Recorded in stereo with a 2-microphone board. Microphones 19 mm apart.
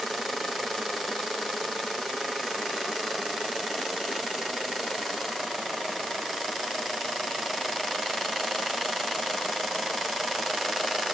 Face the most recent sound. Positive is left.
No sound to turn to.